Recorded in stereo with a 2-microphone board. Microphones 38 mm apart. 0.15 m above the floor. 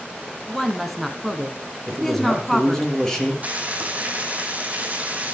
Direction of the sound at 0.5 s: 5° left (ahead or behind).